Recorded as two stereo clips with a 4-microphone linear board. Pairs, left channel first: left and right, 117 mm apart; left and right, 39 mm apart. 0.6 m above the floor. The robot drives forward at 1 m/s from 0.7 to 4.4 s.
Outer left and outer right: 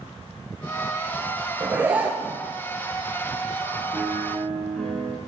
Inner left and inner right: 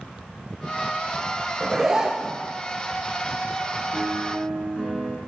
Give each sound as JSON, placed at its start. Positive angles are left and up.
{"t": 1.6, "sound": "a zipper", "side_deg": -15, "distance_m": 2.5}
{"t": 3.9, "sound": "a piano", "side_deg": 5, "distance_m": 2.5}